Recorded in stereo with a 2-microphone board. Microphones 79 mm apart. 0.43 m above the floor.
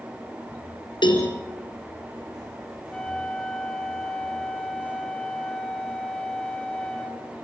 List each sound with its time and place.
1.0 s a cowbell: 75° left (ahead or behind), 4 m
2.9 s a flute: 10° left (ahead or behind), 2.5 m